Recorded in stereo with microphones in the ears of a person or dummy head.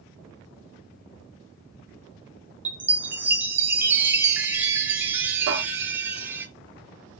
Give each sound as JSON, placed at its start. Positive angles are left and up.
{"t": 2.6, "sound": "a chime", "side_deg": -10, "distance_m": 0.6}
{"t": 5.5, "sound": "a cupboard door", "side_deg": -70, "distance_m": 2.0}